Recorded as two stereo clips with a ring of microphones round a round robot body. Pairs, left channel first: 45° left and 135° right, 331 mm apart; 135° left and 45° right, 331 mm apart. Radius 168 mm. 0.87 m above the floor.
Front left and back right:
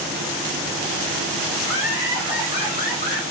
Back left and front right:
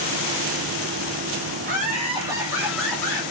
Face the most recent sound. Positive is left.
turn(degrees=55)